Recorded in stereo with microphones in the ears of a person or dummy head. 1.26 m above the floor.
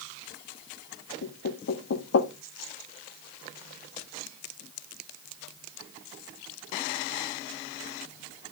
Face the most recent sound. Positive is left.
turn(degrees=75)  # may be behind; listen again after turning